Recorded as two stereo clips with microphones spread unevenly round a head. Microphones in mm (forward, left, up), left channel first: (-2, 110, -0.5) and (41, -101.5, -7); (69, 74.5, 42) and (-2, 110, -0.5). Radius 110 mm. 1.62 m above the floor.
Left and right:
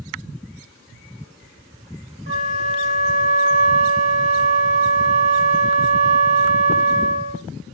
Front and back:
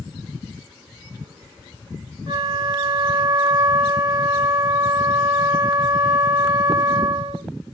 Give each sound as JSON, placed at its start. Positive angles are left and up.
{"t": 2.3, "sound": "a flute", "azimuth_deg": -140, "distance_m": 1.8}